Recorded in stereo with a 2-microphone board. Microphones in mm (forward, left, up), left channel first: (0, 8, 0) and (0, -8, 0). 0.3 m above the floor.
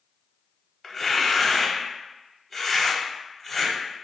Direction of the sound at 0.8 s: 15° left (ahead or behind).